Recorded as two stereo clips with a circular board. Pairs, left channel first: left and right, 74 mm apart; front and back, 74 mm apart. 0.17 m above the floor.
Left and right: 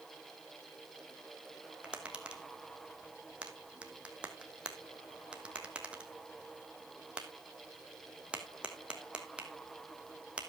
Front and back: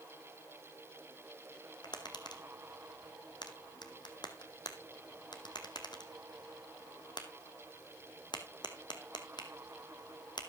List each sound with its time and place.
1.8 s tapping: 15° right, 1.4 m